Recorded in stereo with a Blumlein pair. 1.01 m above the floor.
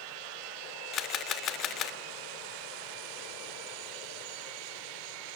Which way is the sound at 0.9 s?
30° left.